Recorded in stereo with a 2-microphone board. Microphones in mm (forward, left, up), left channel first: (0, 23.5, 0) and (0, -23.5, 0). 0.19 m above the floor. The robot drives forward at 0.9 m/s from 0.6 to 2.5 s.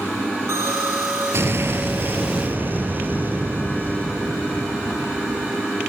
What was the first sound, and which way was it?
An explosion, 70° right (ahead or behind).